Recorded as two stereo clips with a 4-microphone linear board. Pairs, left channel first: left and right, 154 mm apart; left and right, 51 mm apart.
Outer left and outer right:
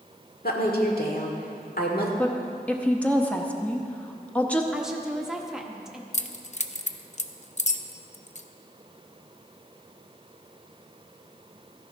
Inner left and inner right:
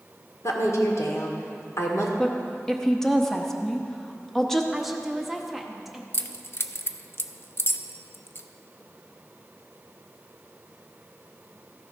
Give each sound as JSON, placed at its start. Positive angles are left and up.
{"t": 0.4, "sound": "a woman speaking", "side_deg": 70, "distance_m": 1.8}
{"t": 2.2, "sound": "a woman speaking", "side_deg": 10, "distance_m": 0.9}
{"t": 4.7, "sound": "a woman speaking", "side_deg": -5, "distance_m": 1.0}
{"t": 6.1, "sound": "keys jangling", "side_deg": 45, "distance_m": 0.5}